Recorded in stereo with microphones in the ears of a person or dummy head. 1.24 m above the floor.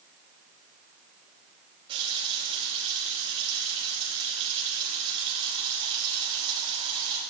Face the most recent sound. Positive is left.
turn(degrees=-30)  # may be behind; listen again after turning